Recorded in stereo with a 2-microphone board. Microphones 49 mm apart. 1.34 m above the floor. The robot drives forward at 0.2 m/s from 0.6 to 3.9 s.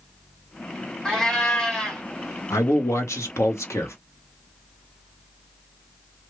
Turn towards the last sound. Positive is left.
turn(degrees=75)  # may be behind; listen again after turning